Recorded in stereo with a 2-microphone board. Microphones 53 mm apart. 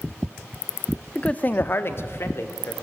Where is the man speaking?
15° left (ahead or behind), 0.5 m; by 2.7 s 55° left (ahead or behind), 1.5 m.